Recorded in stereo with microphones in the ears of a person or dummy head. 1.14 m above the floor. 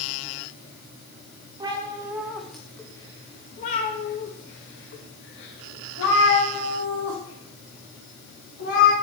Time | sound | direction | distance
1.6 | a cat meowing | 25° right (ahead or behind) | 1.2 m